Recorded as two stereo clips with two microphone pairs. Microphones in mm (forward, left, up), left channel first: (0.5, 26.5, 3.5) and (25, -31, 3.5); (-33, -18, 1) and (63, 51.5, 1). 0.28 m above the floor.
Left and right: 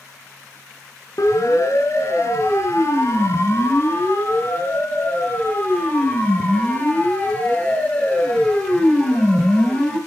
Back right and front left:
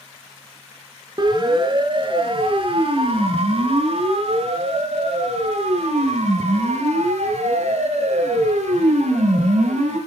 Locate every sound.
1.2 s a siren: 85° left, 4 m; by 10.0 s 40° left, 6.5 m